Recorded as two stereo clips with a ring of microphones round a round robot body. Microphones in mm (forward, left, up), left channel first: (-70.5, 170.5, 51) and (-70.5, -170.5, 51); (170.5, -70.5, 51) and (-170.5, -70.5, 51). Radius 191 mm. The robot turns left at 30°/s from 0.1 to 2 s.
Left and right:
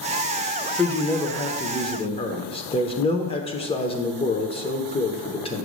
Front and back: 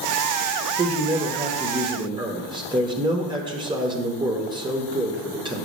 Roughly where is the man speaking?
Behind.